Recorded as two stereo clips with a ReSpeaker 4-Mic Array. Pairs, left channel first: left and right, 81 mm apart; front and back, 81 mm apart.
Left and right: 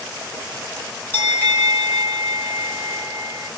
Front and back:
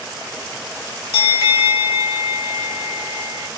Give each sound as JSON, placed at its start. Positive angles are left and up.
{"t": 1.1, "sound": "a bell", "azimuth_deg": 130, "distance_m": 1.8}